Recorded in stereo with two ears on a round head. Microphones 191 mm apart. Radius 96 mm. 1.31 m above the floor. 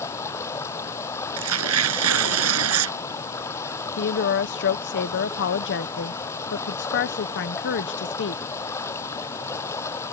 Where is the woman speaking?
55° left (ahead or behind).